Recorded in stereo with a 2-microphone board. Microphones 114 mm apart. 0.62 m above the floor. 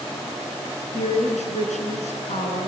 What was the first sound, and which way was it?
A woman speaking, 85° left.